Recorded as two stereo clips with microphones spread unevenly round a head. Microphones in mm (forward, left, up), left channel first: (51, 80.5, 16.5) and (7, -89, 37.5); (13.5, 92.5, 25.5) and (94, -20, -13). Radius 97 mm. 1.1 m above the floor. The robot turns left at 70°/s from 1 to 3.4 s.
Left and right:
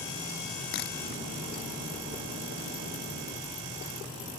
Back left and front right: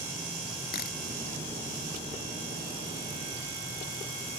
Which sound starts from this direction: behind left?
A camera shutter, at 0.7 s.